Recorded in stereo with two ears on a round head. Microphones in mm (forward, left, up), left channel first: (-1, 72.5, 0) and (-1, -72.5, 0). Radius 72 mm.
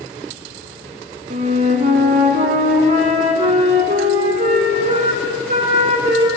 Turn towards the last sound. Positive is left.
turn(degrees=-45)  # may be behind; listen again after turning